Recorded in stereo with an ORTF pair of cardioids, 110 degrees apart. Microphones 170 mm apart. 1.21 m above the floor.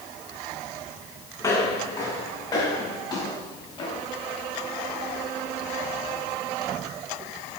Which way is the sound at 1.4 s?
25° left.